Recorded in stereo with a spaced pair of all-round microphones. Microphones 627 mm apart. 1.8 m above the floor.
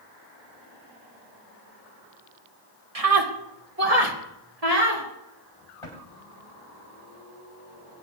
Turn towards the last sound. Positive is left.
turn(degrees=55)  # may be behind; listen again after turning